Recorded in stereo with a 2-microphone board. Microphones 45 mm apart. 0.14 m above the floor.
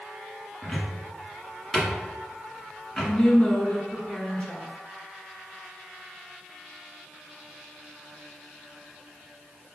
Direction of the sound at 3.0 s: 25° left (ahead or behind).